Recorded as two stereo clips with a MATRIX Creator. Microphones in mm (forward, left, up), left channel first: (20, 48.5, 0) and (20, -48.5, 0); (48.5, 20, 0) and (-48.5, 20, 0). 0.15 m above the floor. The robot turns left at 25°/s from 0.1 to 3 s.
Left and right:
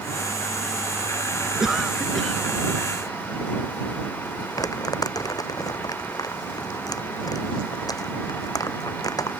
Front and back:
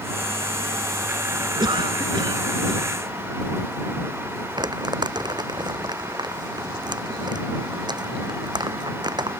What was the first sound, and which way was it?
A cough, 170° right.